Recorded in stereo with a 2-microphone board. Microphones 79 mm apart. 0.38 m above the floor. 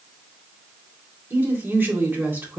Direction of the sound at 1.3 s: 25° right (ahead or behind).